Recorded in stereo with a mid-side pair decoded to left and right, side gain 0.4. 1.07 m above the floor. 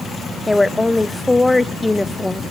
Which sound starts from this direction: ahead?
A woman speaking, at 0.5 s.